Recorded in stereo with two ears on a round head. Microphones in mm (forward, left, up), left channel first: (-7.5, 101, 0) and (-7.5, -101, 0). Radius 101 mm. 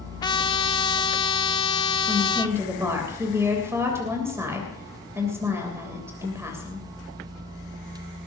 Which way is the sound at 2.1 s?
10° right (ahead or behind).